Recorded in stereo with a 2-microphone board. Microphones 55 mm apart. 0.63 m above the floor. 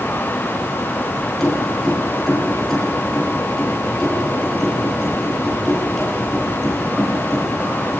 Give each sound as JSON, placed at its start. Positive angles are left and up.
{"t": 1.4, "sound": "keys jangling", "side_deg": 5, "distance_m": 9.0}